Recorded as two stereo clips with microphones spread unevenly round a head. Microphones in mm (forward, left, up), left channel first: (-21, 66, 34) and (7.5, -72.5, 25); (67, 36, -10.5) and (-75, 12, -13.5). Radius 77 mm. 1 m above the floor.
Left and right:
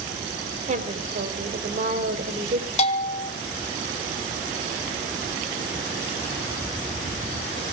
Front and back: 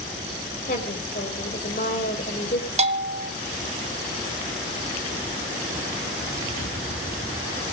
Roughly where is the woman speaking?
Ahead right.